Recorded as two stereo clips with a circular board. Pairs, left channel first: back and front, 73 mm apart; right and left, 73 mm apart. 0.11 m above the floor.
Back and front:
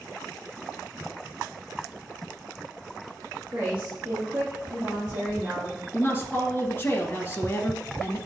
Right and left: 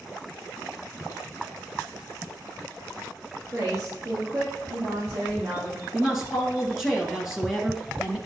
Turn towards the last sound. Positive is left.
turn(degrees=170)